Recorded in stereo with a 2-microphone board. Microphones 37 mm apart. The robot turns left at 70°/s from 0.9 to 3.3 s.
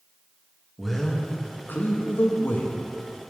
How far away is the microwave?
No microwave in this recording.